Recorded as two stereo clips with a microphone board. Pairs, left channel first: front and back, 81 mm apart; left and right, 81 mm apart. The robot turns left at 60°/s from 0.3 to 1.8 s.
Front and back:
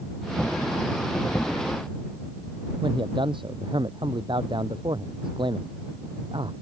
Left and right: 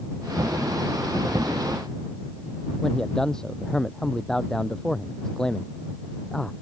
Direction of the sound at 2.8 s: 170° left.